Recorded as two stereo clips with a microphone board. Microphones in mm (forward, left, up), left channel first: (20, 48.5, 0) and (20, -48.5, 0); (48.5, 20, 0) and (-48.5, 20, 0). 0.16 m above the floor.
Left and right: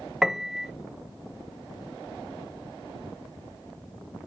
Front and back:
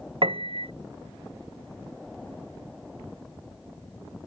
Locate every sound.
0.2 s a piano: 175° right